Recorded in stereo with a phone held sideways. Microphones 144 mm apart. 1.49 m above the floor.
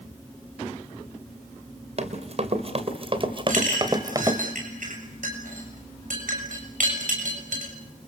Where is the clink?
65° right (ahead or behind), 7.5 m.